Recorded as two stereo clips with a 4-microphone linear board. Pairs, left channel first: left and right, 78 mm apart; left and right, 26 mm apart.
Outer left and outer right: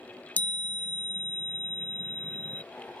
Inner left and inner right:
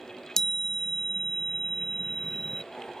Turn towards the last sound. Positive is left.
turn(degrees=25)  # may be behind; listen again after turning